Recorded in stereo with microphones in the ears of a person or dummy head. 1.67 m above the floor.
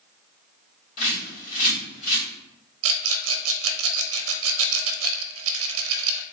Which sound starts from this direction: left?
A bird, at 1.0 s.